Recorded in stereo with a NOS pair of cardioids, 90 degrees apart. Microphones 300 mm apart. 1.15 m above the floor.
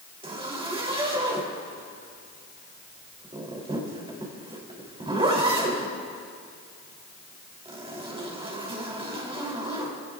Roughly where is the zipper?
Ahead.